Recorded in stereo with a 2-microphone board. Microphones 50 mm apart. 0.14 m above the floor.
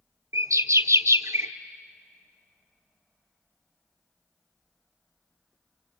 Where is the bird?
75° right (ahead or behind), 1.1 m.